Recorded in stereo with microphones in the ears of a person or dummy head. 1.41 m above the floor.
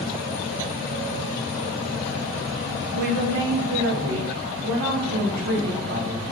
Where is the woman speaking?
50° right (ahead or behind), 0.6 m; by 6.2 s 65° right (ahead or behind), 2.5 m.